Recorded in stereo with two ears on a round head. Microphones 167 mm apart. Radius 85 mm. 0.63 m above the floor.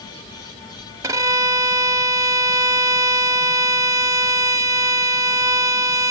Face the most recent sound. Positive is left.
turn(degrees=-20)  # may be behind; listen again after turning